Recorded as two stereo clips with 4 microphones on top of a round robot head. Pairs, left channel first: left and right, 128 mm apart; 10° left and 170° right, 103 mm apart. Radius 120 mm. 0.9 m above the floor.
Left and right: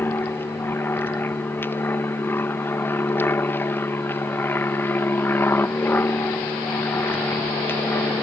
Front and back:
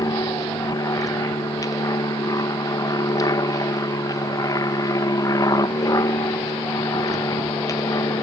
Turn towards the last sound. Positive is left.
turn(degrees=30)